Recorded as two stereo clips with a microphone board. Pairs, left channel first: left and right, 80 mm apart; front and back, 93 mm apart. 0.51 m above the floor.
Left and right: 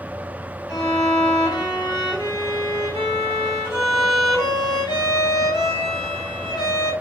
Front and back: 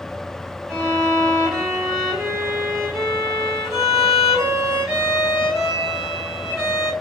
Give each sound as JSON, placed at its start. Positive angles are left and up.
{"t": 0.7, "sound": "a violin", "azimuth_deg": 95, "distance_m": 1.8}